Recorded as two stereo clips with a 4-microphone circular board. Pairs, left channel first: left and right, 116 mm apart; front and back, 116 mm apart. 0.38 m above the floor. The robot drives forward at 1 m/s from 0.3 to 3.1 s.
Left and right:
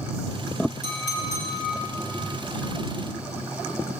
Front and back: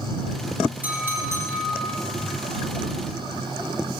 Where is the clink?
105° right, 3 m; by 4.0 s 135° right, 4 m.